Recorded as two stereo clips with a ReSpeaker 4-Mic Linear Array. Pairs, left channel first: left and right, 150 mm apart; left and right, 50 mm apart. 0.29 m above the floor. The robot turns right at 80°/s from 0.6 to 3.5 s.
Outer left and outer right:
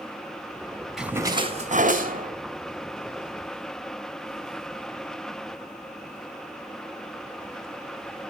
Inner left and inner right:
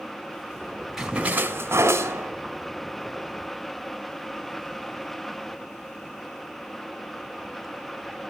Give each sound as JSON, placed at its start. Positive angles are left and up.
{"t": 1.0, "sound": "a splash", "azimuth_deg": -175, "distance_m": 1.8}